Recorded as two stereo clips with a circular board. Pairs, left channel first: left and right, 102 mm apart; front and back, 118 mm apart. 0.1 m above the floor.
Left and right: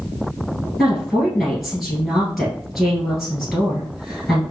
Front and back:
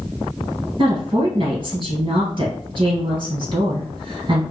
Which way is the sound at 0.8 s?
175° right.